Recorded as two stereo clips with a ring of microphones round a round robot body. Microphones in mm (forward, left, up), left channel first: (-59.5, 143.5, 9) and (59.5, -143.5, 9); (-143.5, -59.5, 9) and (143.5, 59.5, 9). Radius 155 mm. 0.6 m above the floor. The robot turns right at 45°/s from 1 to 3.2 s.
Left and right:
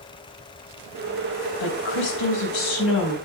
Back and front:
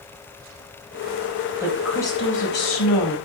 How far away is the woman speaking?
About 4.5 m.